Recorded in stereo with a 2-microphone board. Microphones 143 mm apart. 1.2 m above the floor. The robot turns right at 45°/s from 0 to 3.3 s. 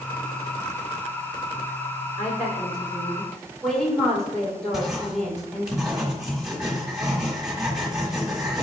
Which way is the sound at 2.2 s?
125° left.